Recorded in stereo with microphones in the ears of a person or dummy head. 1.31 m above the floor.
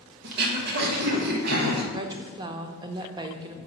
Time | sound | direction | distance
0.2 | throat clearing | 55° right (ahead or behind) | 1.2 m
1.9 | a woman speaking | 25° right (ahead or behind) | 0.6 m